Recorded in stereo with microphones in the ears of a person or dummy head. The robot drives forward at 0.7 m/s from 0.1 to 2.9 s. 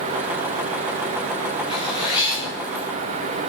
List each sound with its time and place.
1.7 s a zipper: 25° left (ahead or behind), 2.5 m; by 2.9 s 20° left (ahead or behind), 3.5 m